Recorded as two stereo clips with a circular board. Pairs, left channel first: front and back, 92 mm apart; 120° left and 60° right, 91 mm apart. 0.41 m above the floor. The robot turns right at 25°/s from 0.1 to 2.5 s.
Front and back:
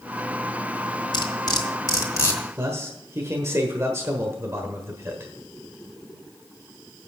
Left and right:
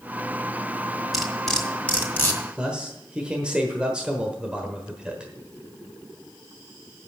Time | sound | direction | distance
1.1 | cutlery clinking | 25° left | 1.9 m
2.6 | a man speaking | 135° right | 1.2 m